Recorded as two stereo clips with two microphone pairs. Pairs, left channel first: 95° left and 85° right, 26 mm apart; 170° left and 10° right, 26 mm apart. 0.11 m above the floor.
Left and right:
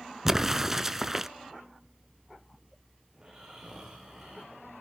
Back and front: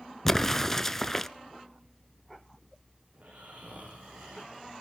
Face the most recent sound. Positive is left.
turn(degrees=-25)